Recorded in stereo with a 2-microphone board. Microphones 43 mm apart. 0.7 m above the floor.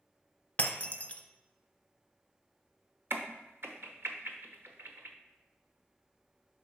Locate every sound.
0.6 s breaking glass: 35° left (ahead or behind), 0.7 m
3.1 s a crack: 65° right (ahead or behind), 0.8 m